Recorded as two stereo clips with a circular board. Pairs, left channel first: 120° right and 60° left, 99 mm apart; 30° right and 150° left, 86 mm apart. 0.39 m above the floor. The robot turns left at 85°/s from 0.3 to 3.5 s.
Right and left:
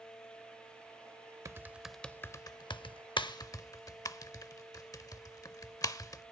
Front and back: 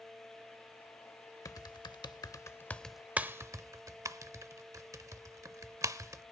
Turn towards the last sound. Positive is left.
turn(degrees=-165)